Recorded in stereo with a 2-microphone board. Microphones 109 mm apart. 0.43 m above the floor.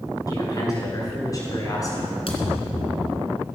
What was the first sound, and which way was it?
A man speaking, 35° left (ahead or behind).